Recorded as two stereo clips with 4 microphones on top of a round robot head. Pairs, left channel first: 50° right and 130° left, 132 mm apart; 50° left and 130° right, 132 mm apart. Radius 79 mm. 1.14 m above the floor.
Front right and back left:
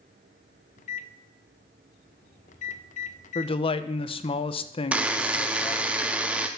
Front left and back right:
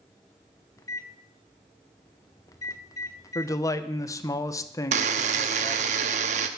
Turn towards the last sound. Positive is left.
turn(degrees=-150)